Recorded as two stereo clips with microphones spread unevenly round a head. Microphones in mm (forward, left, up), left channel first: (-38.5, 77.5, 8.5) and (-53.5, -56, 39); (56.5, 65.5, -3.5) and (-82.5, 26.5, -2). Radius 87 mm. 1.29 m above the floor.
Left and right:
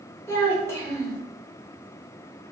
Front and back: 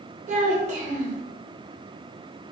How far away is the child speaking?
About 1.0 m.